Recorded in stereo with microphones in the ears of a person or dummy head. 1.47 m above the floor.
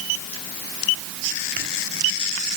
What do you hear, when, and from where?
Only background noise.